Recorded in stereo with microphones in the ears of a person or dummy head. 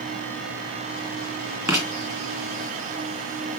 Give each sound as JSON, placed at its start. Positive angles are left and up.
{"t": 1.7, "sound": "writing", "side_deg": -15, "distance_m": 2.5}